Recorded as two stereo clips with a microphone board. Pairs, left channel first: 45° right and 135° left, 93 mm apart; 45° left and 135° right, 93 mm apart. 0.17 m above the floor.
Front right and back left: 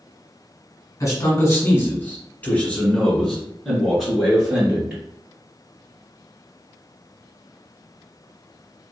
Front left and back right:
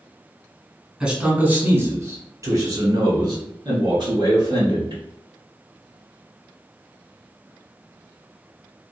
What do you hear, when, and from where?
1.0 s a man speaking: 60° right, 1.3 m; by 5.0 s 145° right, 2.5 m